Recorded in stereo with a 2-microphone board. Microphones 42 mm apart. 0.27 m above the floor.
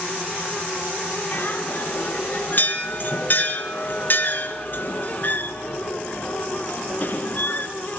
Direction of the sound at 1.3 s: 50° left (ahead or behind).